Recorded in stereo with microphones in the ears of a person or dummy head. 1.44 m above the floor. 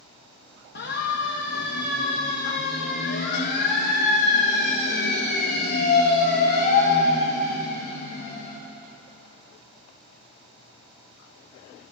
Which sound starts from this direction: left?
A siren, at 0.8 s.